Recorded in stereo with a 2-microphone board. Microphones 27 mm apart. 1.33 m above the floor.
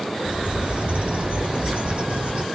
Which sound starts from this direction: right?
A bird, at 0.2 s.